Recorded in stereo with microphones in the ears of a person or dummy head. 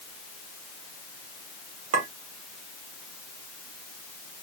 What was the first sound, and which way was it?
A clink, 40° right (ahead or behind).